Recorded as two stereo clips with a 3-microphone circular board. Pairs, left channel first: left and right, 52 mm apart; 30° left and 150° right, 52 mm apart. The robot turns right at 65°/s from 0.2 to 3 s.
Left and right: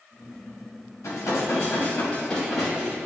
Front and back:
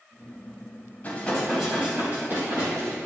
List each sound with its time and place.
1.0 s dishes clattering: 85° left, 3 m; by 3.0 s 150° right, 3 m